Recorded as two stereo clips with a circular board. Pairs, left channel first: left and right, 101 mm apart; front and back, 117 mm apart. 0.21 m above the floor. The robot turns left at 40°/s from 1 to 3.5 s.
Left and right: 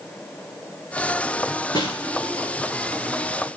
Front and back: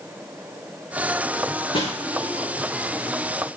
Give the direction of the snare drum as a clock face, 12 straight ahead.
I don't hear a snare drum.